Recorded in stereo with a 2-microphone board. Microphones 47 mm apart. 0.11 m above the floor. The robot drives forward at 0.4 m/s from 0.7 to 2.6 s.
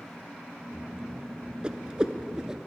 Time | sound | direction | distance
1.6 | a whoosh | 20° right (ahead or behind) | 0.7 m